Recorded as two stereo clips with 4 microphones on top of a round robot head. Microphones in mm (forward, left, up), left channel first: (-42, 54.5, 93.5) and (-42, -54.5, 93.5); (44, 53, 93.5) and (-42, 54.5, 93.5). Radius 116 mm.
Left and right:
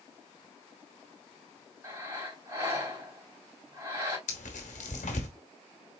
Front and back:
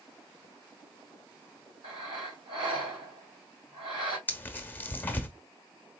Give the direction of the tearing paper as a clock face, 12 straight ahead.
10 o'clock.